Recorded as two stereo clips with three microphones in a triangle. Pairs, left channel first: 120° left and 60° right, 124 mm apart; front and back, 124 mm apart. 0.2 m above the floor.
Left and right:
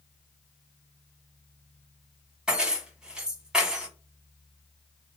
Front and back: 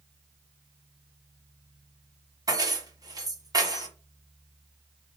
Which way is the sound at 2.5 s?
140° right.